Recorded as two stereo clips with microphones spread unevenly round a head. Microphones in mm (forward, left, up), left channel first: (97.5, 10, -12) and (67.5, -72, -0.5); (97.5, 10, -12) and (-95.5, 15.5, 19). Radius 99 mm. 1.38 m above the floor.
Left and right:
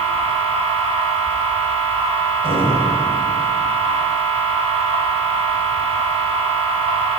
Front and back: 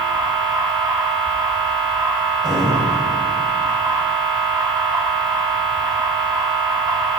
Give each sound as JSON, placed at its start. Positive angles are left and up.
{"t": 0.0, "sound": "a machine running", "azimuth_deg": -110, "distance_m": 6.5}